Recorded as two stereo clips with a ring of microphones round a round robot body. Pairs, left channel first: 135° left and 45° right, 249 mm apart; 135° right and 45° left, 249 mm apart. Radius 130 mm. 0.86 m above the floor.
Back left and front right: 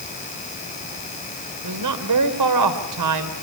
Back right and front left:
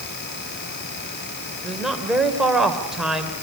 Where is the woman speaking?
45° right, 3 m.